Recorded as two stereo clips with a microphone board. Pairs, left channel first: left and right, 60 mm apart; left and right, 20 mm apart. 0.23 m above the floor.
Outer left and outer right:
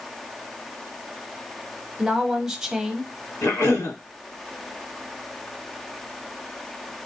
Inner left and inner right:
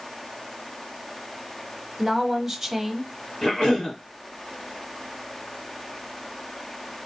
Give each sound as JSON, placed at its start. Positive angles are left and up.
{"t": 2.0, "sound": "a woman speaking", "side_deg": -10, "distance_m": 1.0}
{"t": 3.4, "sound": "a cough", "side_deg": 50, "distance_m": 2.0}